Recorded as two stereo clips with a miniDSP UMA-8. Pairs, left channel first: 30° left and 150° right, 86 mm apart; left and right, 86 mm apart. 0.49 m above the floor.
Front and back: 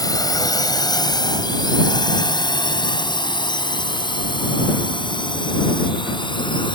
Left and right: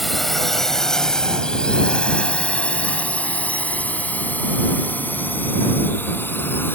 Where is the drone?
Straight ahead; by 6.8 s 25° left.